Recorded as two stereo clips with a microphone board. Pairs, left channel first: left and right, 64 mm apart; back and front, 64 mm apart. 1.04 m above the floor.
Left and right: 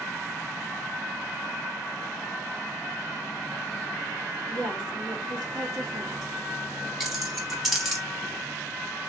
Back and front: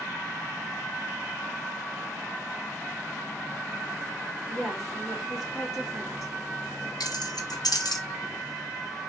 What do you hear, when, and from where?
4.5 s a woman speaking: 95° right, 1.7 m
7.0 s keys jangling: 175° right, 0.8 m